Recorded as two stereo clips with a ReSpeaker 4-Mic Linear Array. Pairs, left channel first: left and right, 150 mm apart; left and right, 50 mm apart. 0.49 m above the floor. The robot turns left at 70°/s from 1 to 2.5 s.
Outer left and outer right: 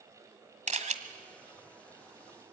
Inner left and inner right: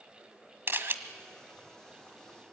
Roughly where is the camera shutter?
Right.